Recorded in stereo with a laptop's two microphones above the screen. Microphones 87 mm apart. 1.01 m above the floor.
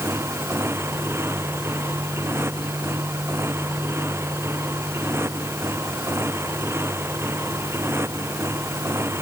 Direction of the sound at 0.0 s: 30° right (ahead or behind).